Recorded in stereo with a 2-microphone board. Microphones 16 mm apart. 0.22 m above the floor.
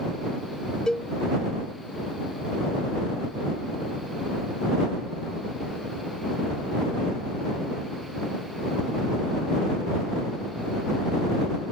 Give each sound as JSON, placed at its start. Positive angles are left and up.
{"t": 0.9, "sound": "a cowbell", "side_deg": 45}